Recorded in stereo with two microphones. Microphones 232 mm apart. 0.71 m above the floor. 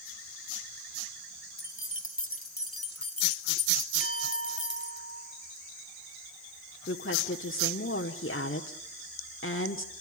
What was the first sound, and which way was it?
Keys jangling, 55° left (ahead or behind).